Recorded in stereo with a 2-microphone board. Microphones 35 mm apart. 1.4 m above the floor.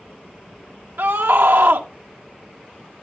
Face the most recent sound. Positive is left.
turn(degrees=-80)